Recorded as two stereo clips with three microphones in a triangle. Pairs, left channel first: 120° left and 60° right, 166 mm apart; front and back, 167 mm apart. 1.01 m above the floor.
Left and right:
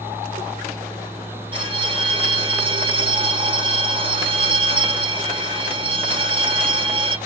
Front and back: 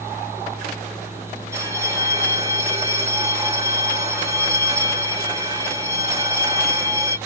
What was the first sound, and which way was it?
A bell, 115° right.